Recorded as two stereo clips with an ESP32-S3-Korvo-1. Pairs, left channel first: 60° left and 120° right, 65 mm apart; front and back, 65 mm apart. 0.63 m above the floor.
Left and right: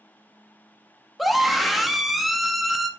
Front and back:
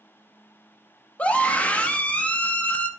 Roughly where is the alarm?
I don't hear an alarm.